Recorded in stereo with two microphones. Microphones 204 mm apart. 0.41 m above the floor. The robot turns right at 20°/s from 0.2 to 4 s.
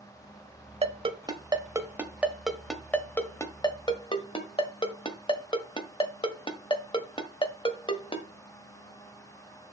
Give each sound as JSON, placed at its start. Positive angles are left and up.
{"t": 0.8, "sound": "a ringtone", "side_deg": -30, "distance_m": 1.3}